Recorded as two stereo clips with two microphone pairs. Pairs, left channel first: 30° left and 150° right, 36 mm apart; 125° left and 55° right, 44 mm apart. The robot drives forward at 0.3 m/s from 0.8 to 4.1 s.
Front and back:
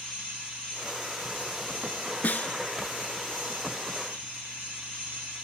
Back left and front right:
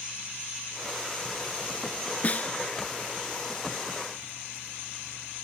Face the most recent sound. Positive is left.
turn(degrees=75)